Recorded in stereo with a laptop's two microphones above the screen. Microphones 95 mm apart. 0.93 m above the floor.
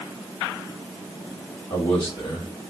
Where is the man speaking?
60° left (ahead or behind), 2 m.